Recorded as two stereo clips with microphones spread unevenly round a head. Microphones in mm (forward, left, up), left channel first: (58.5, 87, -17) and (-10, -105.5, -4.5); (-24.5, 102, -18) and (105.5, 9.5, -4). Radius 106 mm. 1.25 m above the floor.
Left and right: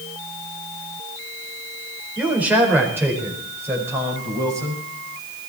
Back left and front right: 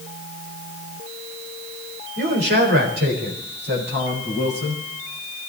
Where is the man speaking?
25° right, 4.5 m; by 4.8 s 35° right, 7 m.